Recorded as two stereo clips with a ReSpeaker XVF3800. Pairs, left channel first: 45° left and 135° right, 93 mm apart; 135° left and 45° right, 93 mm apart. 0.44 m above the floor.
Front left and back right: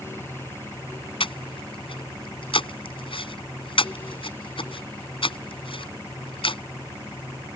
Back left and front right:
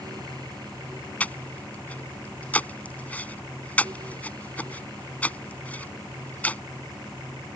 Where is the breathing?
60° left.